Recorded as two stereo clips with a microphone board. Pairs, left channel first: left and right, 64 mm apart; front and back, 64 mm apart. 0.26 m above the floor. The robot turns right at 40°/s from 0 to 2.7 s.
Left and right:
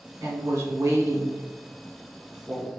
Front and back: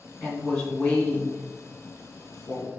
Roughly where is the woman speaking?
Right.